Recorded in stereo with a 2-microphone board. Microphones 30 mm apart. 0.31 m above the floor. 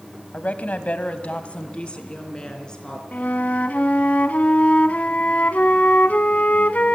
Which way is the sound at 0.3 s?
55° left (ahead or behind).